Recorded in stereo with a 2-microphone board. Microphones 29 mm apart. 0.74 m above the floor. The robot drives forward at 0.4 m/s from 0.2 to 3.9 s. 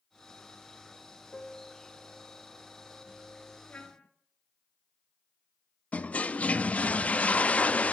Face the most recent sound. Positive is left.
turn(degrees=50)  # may be behind; listen again after turning